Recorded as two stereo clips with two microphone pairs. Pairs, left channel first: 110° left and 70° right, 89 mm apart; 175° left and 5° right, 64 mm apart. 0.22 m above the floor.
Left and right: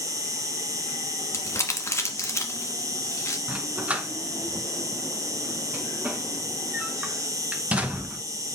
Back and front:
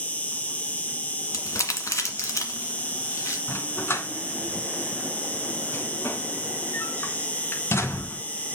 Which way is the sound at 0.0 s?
120° right.